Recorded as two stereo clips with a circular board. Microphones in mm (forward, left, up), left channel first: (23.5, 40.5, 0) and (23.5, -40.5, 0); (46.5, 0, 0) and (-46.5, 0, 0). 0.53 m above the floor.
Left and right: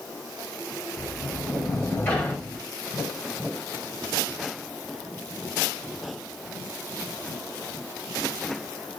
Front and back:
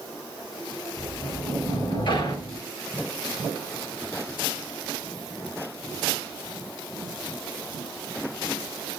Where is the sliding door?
25° left, 1.6 m.